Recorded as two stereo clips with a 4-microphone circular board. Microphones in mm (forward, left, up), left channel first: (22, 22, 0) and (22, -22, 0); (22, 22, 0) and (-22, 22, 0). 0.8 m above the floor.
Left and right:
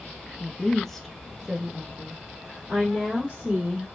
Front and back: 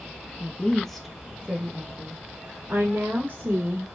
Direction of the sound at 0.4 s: 30° left.